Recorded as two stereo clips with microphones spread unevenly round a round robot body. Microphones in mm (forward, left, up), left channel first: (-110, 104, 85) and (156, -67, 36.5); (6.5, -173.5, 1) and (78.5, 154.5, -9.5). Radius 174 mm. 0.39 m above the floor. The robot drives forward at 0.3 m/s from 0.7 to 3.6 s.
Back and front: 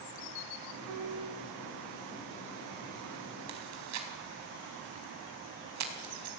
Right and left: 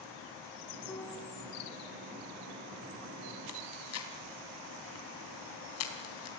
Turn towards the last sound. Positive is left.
turn(degrees=-60)